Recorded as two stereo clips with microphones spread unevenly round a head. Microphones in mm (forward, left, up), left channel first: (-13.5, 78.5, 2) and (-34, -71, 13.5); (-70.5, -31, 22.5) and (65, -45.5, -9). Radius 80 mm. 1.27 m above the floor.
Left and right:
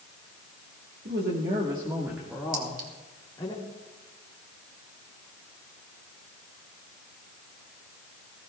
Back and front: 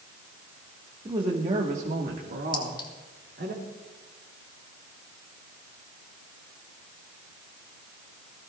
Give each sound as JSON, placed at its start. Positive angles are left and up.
{"t": 1.1, "sound": "a woman speaking", "azimuth_deg": -65, "distance_m": 1.7}
{"t": 2.5, "sound": "a clink", "azimuth_deg": -130, "distance_m": 3.0}